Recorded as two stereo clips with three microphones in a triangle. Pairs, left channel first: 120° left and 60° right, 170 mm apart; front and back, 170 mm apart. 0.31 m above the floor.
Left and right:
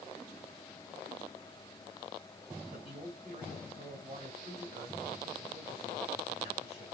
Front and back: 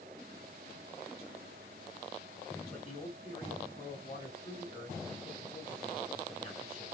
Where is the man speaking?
40° right, 1.8 m.